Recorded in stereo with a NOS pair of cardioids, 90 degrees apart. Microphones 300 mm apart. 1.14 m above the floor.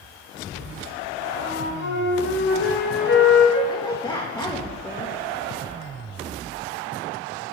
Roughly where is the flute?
Ahead left.